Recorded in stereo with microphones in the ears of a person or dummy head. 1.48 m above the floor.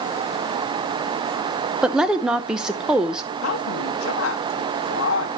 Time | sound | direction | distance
1.8 | a woman speaking | 15° right (ahead or behind) | 0.7 m
3.4 | a woman speaking | 80° left | 1.1 m